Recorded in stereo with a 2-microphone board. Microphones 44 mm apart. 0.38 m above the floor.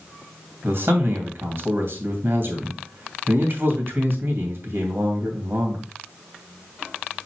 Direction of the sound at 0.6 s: 60° right (ahead or behind).